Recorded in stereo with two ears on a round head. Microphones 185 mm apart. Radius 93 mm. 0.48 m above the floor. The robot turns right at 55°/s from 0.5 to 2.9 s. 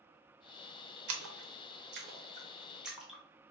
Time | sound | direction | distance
1.1 | a splash | 75° right (ahead or behind) | 0.6 m